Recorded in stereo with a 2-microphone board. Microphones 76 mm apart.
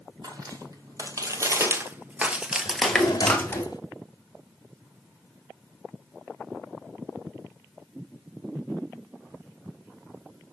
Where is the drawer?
55° left (ahead or behind), 1.3 m.